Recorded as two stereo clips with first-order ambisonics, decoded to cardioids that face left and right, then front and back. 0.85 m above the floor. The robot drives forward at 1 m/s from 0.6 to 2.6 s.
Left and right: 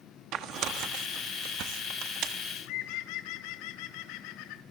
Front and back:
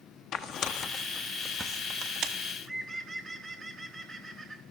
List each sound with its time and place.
0.3 s tearing paper: 45° right, 1.3 m; by 2.3 s 135° right, 1.4 m
2.4 s a bird: 85° left, 1.3 m; by 4.6 s 95° left, 1.3 m